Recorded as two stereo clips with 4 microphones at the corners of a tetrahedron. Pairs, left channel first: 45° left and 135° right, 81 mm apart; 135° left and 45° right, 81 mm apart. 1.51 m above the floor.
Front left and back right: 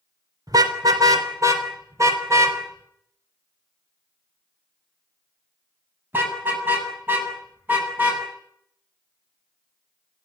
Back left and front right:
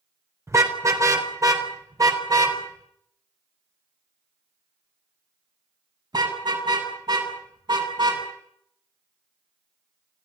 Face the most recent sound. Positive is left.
turn(degrees=-65)